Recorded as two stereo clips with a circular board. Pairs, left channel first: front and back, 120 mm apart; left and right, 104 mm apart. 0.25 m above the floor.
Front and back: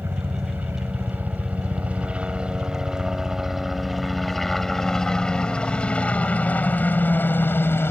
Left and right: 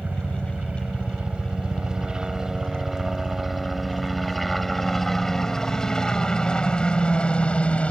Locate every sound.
0.0 s a helicopter: 145° right; by 7.9 s 30° left